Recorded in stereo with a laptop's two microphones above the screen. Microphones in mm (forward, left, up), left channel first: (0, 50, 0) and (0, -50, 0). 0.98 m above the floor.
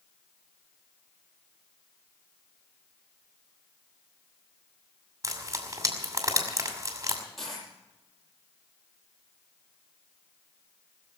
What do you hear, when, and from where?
5.2 s frying: 35° right (ahead or behind), 2.5 m
7.4 s a dropped coin: centre (ahead or behind), 8 m